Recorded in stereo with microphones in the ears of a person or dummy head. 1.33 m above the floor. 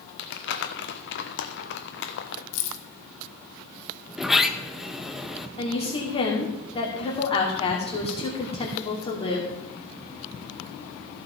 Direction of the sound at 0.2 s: 55° left (ahead or behind).